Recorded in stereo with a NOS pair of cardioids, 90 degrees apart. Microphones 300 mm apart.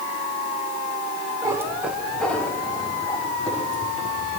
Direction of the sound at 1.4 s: 15° right.